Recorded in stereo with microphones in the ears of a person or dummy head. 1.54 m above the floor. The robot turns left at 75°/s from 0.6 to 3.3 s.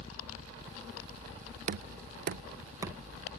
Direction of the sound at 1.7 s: 45° right (ahead or behind).